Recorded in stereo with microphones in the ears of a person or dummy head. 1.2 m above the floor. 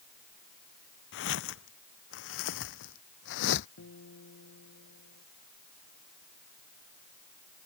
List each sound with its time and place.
1.1 s footsteps: 70° left (ahead or behind); by 3.7 s 65° left (ahead or behind)
3.8 s a guitar: 85° left